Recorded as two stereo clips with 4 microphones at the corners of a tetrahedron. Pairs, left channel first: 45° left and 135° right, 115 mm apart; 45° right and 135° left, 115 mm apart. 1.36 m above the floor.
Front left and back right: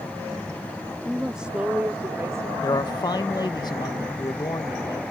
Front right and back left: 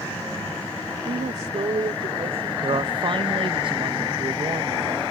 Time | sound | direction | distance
1.1 | a woman speaking | 135° left | ?
2.6 | a man speaking | 95° left | ?